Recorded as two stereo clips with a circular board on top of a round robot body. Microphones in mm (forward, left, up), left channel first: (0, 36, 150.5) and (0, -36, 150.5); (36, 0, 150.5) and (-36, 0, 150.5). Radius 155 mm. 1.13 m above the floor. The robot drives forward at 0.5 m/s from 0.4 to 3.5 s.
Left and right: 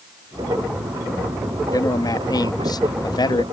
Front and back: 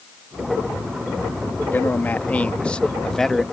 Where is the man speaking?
60° left; by 3.4 s 85° left.